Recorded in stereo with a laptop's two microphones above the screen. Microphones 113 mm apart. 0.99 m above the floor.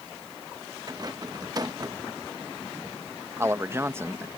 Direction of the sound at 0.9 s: 35° right (ahead or behind).